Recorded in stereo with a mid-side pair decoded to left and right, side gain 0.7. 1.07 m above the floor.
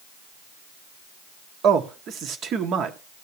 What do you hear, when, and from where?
1.6 s a man speaking: 45° right, 2 m